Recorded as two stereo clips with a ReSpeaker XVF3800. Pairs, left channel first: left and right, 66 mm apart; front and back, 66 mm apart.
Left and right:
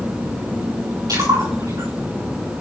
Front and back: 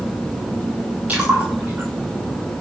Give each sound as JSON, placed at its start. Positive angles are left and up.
{"t": 1.1, "sound": "a splash", "azimuth_deg": -110, "distance_m": 6.5}